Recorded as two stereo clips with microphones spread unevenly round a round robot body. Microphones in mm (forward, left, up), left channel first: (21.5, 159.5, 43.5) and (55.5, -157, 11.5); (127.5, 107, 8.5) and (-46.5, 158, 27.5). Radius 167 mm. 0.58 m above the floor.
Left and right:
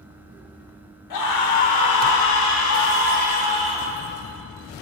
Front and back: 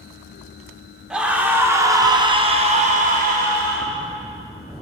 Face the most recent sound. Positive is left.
turn(degrees=180)